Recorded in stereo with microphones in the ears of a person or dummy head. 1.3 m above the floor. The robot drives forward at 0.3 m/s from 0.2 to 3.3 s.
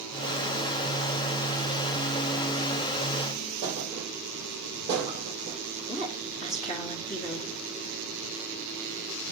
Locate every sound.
3.6 s a thud: 25° right (ahead or behind), 4.5 m
5.9 s a woman speaking: 30° left (ahead or behind), 2.5 m